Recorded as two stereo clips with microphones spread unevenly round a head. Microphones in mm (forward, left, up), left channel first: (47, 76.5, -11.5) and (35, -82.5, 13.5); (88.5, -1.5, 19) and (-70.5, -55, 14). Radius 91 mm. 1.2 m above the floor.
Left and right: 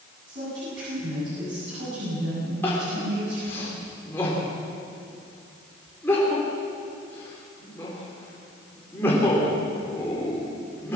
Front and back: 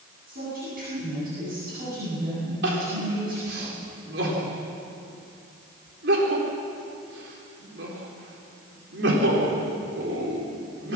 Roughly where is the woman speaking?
Behind right.